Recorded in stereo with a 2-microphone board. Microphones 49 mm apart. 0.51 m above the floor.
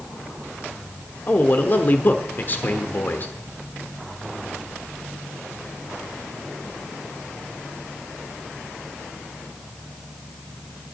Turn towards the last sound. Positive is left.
turn(degrees=40)  # may be behind; listen again after turning